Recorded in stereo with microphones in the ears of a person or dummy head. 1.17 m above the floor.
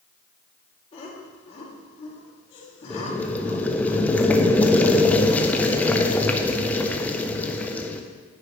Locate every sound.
0.9 s laughter: 30° left (ahead or behind), 2 m
2.9 s boiling: 5° left (ahead or behind), 0.6 m